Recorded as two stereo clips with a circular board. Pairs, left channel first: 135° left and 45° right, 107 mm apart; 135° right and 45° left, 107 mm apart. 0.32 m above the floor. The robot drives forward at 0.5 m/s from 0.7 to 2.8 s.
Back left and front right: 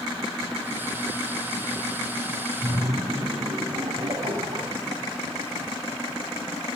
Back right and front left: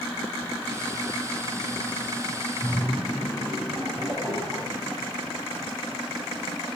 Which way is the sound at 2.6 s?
40° right.